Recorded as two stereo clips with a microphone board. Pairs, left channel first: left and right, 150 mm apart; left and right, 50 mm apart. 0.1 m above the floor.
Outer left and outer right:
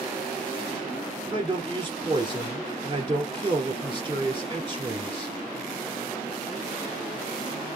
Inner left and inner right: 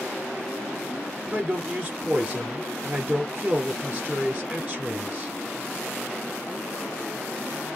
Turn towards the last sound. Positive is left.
turn(degrees=-30)  # may be behind; listen again after turning